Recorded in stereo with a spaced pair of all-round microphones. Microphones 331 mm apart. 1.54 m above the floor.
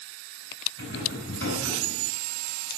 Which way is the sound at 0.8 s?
45° left (ahead or behind).